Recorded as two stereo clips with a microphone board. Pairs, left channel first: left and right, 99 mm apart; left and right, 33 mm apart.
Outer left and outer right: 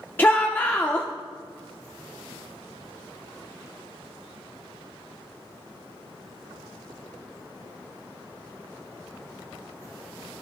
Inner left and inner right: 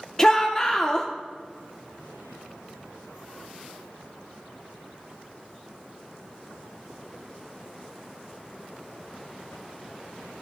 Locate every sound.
0.2 s a shout: 20° left (ahead or behind), 0.8 m